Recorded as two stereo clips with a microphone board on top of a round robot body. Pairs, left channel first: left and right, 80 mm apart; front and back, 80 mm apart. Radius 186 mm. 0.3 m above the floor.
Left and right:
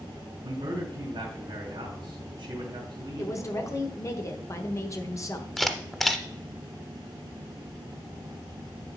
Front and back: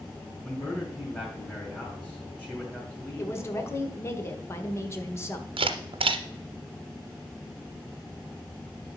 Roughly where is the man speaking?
Right.